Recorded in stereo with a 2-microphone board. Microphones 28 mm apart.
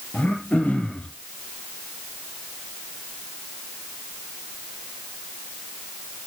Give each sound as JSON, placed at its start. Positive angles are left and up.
{"t": 0.1, "sound": "throat clearing", "side_deg": 85, "distance_m": 2.5}